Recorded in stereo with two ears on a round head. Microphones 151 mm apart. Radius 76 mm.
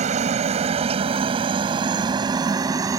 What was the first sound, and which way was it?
A helicopter, 45° right (ahead or behind).